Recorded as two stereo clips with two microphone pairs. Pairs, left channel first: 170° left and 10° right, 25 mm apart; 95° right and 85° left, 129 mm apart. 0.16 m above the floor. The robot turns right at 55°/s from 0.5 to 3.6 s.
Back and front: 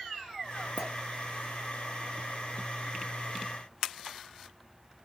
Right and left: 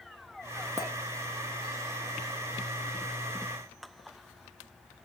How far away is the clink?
About 1.2 m.